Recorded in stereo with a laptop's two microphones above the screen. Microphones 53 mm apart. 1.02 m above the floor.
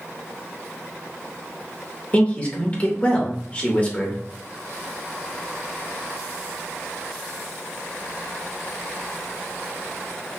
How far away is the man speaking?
About 1.0 m.